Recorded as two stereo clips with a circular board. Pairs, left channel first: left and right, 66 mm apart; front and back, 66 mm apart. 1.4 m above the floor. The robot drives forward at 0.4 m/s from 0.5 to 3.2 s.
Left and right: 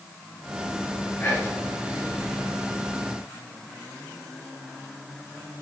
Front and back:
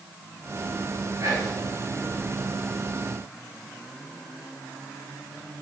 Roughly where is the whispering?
Behind left.